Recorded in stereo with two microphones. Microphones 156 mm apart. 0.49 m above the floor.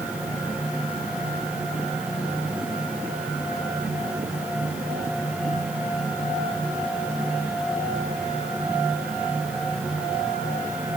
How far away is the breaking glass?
No breaking glass in this recording.